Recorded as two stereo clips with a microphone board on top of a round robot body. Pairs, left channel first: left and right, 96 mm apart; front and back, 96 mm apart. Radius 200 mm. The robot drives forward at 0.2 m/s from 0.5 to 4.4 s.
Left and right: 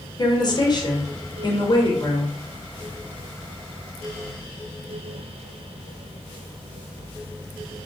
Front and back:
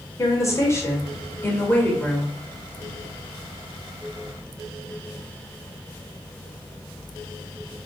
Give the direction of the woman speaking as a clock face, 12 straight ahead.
10 o'clock.